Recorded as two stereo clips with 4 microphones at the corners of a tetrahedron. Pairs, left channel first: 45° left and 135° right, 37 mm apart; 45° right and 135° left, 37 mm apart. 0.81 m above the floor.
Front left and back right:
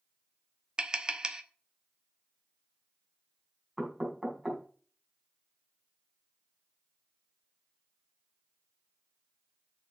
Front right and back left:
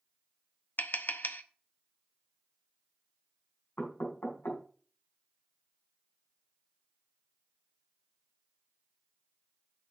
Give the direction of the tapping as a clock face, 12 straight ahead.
2 o'clock.